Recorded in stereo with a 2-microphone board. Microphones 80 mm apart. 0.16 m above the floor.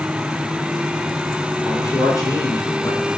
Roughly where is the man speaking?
Left.